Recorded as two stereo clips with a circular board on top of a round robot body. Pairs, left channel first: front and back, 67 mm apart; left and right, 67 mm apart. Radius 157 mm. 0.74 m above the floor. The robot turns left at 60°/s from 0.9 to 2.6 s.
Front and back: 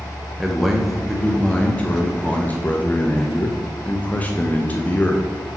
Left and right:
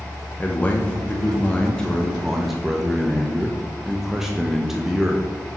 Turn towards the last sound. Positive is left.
turn(degrees=-15)